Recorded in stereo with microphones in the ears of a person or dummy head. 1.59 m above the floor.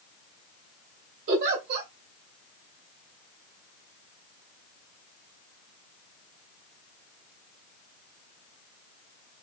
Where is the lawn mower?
I don't hear a lawn mower.